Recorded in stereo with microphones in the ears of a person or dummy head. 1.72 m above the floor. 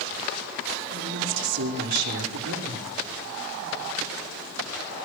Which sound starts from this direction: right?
A woman speaking, at 0.9 s.